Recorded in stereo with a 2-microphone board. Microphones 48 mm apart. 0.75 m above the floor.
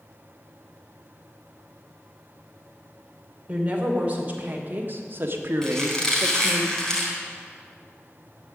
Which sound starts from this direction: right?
A woman speaking, at 3.5 s.